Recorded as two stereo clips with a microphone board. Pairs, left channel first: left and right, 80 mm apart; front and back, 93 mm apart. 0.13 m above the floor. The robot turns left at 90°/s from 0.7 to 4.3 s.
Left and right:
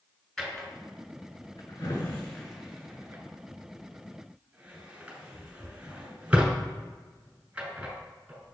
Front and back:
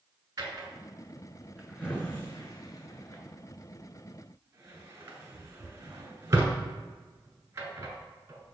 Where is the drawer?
175° left, 1.1 m; by 8.5 s 150° right, 1.1 m.